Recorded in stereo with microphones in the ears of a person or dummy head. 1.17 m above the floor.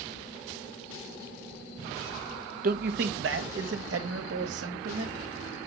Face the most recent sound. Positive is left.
turn(degrees=-75)  # may be behind; listen again after turning